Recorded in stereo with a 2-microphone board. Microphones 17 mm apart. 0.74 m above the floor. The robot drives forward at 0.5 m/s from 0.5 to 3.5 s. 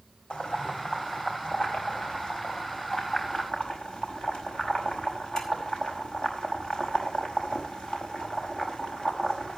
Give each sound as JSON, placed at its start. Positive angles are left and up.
{"t": 0.3, "sound": "boiling", "side_deg": 65, "distance_m": 4.5}